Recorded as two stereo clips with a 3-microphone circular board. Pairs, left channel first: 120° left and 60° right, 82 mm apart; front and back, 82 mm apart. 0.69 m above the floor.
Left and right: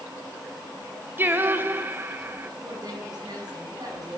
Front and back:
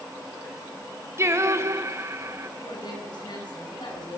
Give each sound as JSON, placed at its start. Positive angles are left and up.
{"t": 1.2, "sound": "singing", "azimuth_deg": -125, "distance_m": 1.8}
{"t": 2.6, "sound": "a woman speaking", "azimuth_deg": -25, "distance_m": 7.0}